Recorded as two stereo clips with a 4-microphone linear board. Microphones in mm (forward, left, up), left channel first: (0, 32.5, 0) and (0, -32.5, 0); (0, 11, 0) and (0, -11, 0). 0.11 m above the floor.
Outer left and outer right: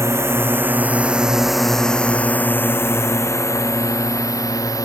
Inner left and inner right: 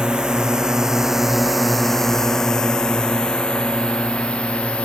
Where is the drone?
45° right (ahead or behind); by 4.9 s 60° left (ahead or behind).